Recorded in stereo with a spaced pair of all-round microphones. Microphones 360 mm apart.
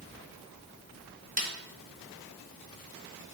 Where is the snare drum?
25° right (ahead or behind), 0.9 m.